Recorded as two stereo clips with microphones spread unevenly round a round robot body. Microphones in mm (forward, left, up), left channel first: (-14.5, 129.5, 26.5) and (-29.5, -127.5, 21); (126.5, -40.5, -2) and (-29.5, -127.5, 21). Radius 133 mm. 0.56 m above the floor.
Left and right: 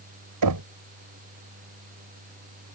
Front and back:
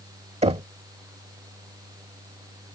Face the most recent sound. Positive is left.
turn(degrees=-95)